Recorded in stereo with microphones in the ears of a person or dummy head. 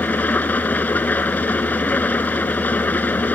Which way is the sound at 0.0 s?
10° left (ahead or behind).